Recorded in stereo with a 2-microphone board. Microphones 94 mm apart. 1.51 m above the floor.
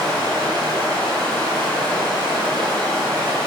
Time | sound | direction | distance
0.0 | running water | 45° right (ahead or behind) | 6.5 m